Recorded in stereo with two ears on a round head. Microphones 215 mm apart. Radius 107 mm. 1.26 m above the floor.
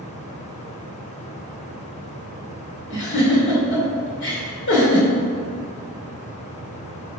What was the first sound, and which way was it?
A giggle, 50° left (ahead or behind).